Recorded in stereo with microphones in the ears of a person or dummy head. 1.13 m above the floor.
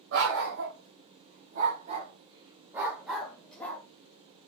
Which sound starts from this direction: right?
A dog barking, at 0.1 s.